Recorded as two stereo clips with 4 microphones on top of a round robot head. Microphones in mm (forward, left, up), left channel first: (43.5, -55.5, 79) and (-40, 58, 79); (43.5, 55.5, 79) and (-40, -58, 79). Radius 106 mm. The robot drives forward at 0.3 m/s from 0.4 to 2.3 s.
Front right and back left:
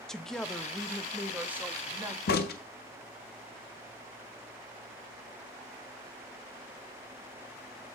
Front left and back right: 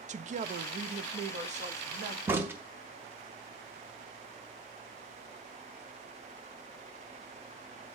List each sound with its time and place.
0.1 s a woman speaking: 140° right, 0.6 m; by 2.2 s 160° right, 1.0 m
2.3 s a crack: 50° right, 0.7 m